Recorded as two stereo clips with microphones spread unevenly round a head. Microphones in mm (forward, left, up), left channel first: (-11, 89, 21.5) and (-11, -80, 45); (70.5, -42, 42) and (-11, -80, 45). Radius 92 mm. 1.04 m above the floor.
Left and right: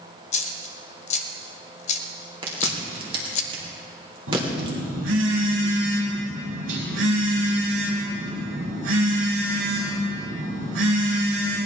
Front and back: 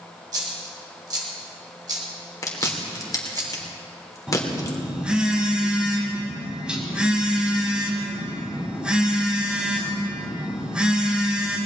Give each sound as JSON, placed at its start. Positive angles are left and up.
{"t": 0.3, "sound": "a dropped coin", "azimuth_deg": 140, "distance_m": 1.1}
{"t": 2.4, "sound": "chewing", "azimuth_deg": -25, "distance_m": 3.5}
{"t": 4.3, "sound": "a phone buzzing", "azimuth_deg": -75, "distance_m": 4.5}